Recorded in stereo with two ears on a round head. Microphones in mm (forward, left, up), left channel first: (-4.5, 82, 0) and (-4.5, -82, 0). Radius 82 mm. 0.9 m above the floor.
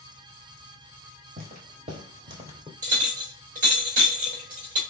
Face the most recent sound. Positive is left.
turn(degrees=-40)  # may be behind; listen again after turning